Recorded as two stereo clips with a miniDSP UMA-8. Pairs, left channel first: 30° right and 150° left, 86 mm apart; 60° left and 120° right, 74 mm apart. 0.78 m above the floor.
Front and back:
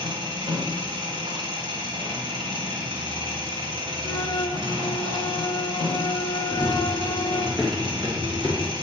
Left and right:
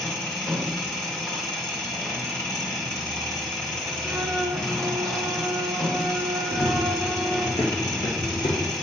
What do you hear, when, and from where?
0.0 s an engine running: 140° left, 2 m
4.0 s a flute: 55° right, 0.8 m
6.5 s running footsteps: 50° left, 2.5 m; by 8.7 s 85° left, 2 m